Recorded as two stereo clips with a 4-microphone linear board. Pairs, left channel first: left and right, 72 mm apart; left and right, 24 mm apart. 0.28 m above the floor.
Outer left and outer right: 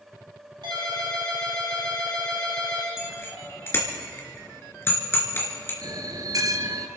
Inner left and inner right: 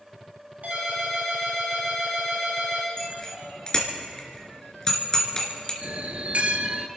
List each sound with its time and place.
0.6 s a ringtone: 80° right, 5.5 m
3.0 s a bicycle bell: 35° left (ahead or behind), 3 m
5.8 s a bell: 55° right (ahead or behind), 1.0 m